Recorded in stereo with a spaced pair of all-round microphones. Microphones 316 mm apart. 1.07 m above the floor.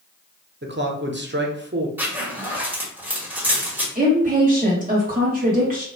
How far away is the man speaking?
About 0.7 m.